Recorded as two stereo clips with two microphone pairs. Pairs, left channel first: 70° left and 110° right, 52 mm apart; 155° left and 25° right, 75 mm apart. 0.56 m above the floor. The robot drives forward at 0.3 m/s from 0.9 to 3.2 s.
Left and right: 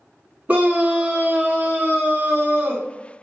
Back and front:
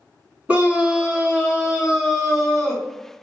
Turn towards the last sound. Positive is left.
turn(degrees=-130)